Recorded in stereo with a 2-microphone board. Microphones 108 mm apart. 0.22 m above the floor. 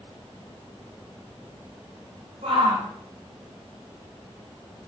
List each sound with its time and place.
2.4 s a shout: 80° right, 6.5 m